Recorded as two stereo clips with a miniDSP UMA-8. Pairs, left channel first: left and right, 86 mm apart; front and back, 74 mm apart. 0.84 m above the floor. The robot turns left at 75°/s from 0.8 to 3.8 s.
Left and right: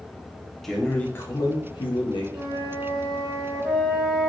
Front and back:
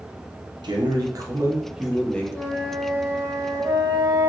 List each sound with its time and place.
0.6 s a man speaking: straight behind, 1.1 m; by 2.2 s 70° left, 1.1 m
2.3 s a flute: 60° right, 1.7 m; by 4.3 s 170° right, 1.7 m